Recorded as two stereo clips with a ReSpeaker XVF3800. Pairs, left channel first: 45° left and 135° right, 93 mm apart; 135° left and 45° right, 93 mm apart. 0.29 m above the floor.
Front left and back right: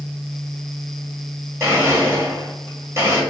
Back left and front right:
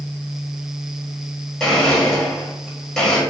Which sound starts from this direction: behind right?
A blender, at 1.6 s.